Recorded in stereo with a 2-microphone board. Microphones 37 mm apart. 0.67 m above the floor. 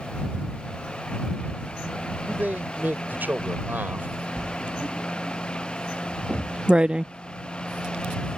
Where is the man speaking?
55° right (ahead or behind).